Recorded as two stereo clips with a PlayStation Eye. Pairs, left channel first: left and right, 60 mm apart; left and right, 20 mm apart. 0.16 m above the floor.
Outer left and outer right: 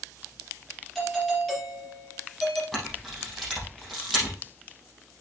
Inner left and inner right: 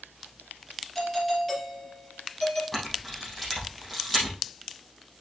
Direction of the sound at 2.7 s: 5° left (ahead or behind).